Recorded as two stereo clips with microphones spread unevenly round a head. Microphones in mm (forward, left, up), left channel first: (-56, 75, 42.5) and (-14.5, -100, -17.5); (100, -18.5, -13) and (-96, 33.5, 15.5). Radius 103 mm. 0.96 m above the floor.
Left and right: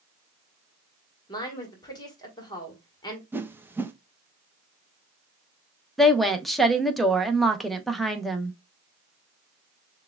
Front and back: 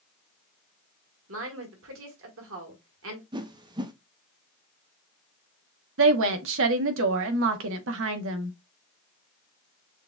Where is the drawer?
I don't hear a drawer.